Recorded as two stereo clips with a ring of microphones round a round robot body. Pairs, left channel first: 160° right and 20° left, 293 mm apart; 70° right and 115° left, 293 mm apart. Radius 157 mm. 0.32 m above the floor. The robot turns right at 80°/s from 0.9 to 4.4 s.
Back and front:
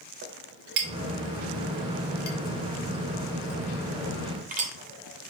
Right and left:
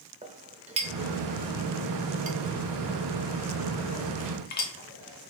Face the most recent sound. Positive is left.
turn(degrees=-25)